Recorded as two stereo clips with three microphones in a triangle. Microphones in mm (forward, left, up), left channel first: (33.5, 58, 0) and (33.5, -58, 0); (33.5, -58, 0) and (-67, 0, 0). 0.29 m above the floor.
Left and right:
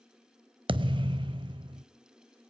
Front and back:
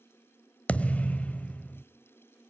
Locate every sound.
0.7 s a thud: 105° right, 0.6 m